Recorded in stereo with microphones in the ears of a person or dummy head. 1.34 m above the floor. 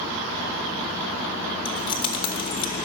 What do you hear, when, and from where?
1.6 s keys jangling: 30° left (ahead or behind), 1.0 m